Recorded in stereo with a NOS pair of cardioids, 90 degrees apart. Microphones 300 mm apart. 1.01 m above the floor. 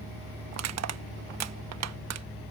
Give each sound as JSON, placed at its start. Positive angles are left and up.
{"t": 0.5, "sound": "crushing", "azimuth_deg": -60}